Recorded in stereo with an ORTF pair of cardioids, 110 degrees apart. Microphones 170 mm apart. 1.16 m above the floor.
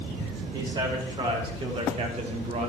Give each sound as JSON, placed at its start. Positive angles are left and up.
{"t": 0.5, "sound": "a man speaking", "azimuth_deg": -25, "distance_m": 4.5}